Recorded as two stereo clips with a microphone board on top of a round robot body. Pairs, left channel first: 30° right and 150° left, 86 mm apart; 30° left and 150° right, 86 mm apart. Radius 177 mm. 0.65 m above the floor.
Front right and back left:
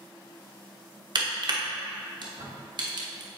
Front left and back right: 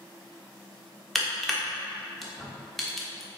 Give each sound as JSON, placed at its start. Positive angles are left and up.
{"t": 1.1, "sound": "crushing", "azimuth_deg": 120, "distance_m": 1.1}